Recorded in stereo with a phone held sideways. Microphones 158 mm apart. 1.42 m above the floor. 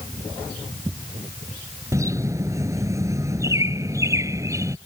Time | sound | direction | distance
1.9 | a bird | 20° right (ahead or behind) | ?